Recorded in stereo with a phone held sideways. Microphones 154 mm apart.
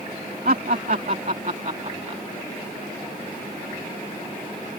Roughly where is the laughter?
Right.